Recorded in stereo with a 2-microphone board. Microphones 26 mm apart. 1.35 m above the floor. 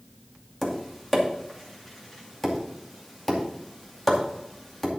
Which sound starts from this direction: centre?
Tapping, at 0.6 s.